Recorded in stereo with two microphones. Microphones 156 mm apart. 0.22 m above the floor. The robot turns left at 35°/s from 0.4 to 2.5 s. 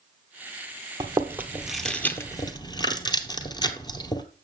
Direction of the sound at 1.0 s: 25° right (ahead or behind).